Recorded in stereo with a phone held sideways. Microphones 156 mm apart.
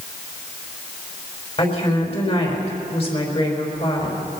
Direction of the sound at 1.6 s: 40° left (ahead or behind).